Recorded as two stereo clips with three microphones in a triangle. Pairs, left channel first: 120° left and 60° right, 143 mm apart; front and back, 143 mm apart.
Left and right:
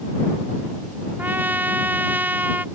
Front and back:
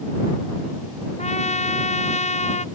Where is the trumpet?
15° left.